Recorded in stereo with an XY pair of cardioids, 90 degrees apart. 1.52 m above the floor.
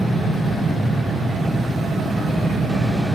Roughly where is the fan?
Ahead right.